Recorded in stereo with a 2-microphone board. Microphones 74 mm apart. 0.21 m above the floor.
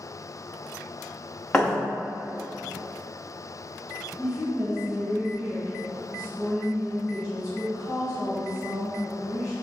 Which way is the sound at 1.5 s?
15° left (ahead or behind).